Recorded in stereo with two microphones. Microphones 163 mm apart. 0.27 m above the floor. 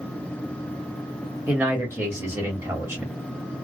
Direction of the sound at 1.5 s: 15° right (ahead or behind).